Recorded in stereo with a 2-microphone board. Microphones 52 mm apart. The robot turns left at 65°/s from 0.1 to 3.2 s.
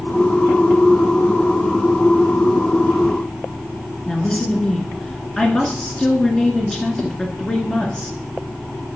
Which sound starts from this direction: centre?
A woman speaking, at 4.1 s.